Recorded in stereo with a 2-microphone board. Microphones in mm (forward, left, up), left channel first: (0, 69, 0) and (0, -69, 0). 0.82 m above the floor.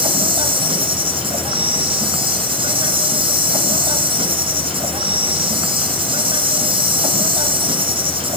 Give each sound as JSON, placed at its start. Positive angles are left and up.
{"t": 0.0, "sound": "an insect", "side_deg": -40, "distance_m": 2.5}